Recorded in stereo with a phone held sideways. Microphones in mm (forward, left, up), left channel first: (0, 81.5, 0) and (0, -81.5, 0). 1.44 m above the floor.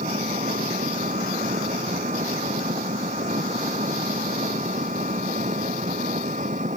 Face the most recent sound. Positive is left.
turn(degrees=-50)  # may be behind; listen again after turning